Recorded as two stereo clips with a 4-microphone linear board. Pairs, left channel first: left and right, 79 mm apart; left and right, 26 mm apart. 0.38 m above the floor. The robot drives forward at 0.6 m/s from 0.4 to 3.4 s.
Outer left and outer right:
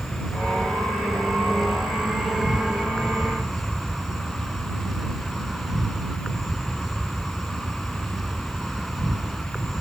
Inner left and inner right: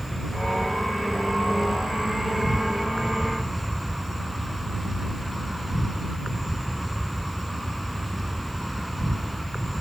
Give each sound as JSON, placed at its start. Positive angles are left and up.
{"t": 0.0, "sound": "an insect", "side_deg": 0}